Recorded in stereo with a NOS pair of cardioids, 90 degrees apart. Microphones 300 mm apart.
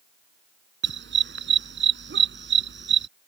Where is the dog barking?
35° right.